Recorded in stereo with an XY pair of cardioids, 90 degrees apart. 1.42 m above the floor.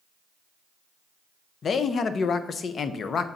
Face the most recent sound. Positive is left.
turn(degrees=55)